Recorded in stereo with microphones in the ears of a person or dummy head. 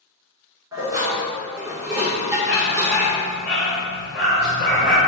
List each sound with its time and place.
0.7 s dishes clattering: 15° right (ahead or behind), 2.5 m
2.5 s a dog barking: 5° left (ahead or behind), 1.6 m